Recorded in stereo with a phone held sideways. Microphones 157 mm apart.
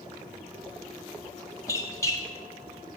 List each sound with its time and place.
1.7 s a squeak: 20° left (ahead or behind), 0.9 m